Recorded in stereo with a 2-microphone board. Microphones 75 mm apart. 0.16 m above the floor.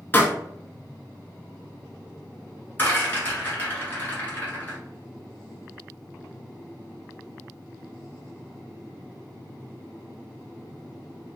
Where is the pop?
25° left (ahead or behind), 0.6 m.